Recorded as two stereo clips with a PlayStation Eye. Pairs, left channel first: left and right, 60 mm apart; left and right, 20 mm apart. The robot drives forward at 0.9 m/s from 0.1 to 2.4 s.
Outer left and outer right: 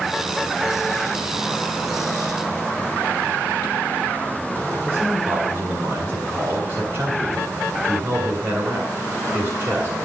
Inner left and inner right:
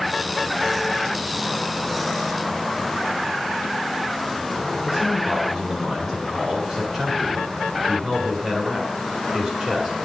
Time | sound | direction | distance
4.9 | a man speaking | 40° right (ahead or behind) | 1.9 m